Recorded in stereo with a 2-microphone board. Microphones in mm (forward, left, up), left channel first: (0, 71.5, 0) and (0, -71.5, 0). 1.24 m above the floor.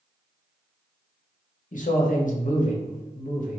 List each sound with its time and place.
1.7 s a man speaking: 65° left (ahead or behind), 0.7 m